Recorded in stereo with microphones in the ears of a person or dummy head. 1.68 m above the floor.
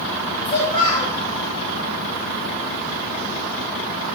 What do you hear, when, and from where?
0.5 s a child speaking: 25° left (ahead or behind), 1.3 m